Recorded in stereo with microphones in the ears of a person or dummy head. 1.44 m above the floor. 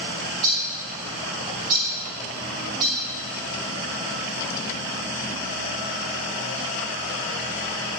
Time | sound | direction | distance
0.2 | a bird | 20° right (ahead or behind) | 1.3 m